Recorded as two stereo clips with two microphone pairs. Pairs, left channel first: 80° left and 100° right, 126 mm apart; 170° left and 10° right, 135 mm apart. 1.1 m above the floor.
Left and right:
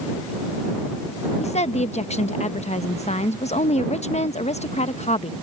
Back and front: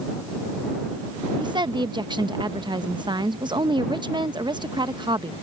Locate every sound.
1.4 s a woman speaking: 50° left